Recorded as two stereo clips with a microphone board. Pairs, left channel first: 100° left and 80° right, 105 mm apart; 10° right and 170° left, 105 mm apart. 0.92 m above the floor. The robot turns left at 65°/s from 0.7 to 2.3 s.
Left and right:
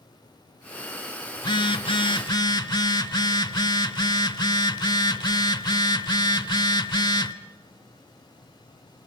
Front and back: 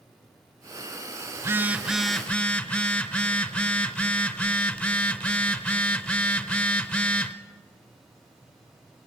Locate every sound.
1.4 s a phone buzzing: 125° left, 0.8 m; by 7.3 s 65° left, 0.8 m